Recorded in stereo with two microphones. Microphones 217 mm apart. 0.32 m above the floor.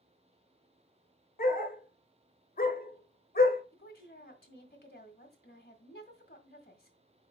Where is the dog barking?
45° left (ahead or behind), 1.0 m.